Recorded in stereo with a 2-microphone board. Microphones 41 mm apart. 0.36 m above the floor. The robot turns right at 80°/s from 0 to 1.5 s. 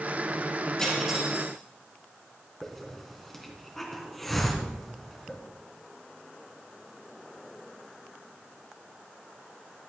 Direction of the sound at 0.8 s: 170° left.